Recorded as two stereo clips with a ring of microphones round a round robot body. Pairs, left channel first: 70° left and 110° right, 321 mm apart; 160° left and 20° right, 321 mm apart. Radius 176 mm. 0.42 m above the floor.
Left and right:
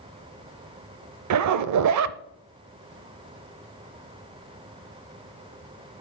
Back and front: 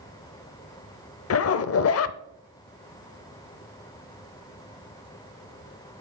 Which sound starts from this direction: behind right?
A zipper, at 1.3 s.